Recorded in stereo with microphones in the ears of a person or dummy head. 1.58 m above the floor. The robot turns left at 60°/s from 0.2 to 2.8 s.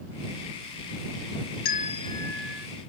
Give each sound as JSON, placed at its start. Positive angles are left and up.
{"t": 1.6, "sound": "a bell", "azimuth_deg": 45}